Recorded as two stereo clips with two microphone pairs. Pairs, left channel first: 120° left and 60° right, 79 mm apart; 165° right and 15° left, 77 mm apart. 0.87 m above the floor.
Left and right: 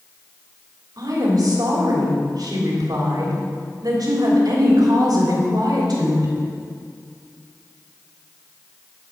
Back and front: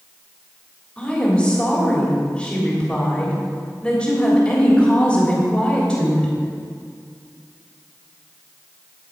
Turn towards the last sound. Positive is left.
turn(degrees=-90)